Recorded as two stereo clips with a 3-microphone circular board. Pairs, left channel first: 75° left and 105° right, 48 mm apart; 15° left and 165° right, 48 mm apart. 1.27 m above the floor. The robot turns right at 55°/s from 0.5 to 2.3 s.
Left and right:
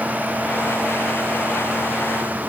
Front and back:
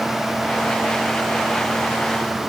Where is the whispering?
I don't hear whispering.